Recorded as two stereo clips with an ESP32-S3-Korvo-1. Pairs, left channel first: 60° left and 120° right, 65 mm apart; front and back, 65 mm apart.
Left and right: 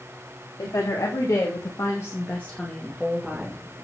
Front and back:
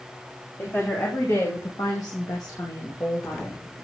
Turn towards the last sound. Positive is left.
turn(degrees=-45)